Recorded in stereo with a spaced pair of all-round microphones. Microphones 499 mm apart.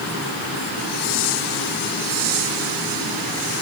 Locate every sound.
Only background noise.